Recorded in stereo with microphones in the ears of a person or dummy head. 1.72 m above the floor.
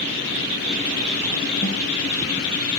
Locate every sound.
1.6 s a snare drum: 40° right (ahead or behind), 9 m